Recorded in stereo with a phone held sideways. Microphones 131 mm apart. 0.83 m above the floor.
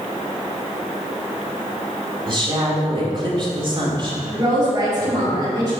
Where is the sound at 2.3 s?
40° right (ahead or behind), 1.9 m.